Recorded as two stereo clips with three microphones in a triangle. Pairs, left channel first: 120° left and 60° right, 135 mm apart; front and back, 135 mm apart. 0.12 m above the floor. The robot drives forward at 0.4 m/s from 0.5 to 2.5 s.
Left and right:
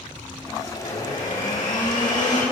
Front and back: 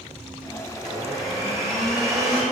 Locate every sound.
0.8 s a blender: 140° left, 5 m